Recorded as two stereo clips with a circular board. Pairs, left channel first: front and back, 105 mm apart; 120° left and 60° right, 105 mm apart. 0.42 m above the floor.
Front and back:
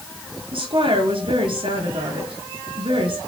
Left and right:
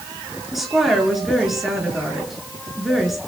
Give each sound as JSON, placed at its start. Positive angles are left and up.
{"t": 0.5, "sound": "a woman speaking", "azimuth_deg": -150, "distance_m": 7.0}